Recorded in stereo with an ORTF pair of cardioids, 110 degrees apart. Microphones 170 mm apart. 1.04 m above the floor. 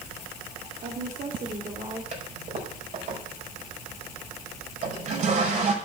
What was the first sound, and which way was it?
A woman speaking, 50° right.